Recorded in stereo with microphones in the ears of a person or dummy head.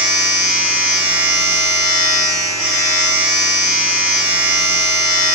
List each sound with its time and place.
0.0 s a machine running: 10° right (ahead or behind), 0.7 m